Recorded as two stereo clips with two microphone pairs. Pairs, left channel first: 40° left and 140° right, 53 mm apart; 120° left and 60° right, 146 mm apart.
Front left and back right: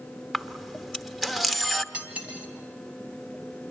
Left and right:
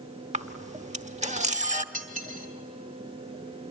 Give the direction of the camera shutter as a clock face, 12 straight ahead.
2 o'clock.